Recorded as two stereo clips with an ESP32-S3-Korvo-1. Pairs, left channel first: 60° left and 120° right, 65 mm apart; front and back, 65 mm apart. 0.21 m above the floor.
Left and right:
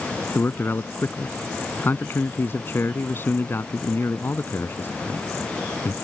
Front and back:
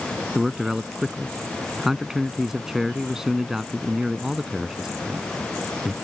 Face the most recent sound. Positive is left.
turn(degrees=100)